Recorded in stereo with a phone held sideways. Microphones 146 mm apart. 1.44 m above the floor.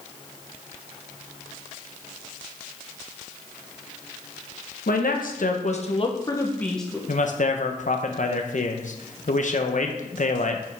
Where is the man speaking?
60° left (ahead or behind), 0.9 m.